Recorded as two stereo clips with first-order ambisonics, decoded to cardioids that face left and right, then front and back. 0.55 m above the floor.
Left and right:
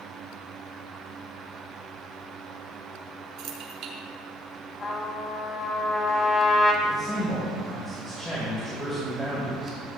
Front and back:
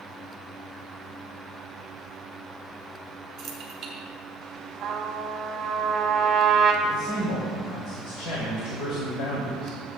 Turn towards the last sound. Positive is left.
turn(degrees=0)